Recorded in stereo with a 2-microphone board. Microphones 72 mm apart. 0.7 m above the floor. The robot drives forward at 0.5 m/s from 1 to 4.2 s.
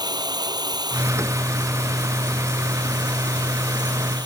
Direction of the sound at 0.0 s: 70° right (ahead or behind).